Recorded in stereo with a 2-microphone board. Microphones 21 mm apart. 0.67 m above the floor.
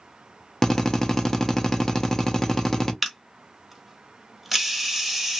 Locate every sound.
0.6 s a drill: 25° left (ahead or behind), 0.6 m
3.0 s a camera shutter: centre (ahead or behind), 0.8 m